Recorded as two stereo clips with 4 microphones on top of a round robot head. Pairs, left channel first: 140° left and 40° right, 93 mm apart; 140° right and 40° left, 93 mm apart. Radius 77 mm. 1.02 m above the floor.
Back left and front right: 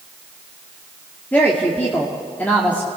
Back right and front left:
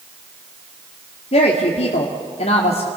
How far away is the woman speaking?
About 2 m.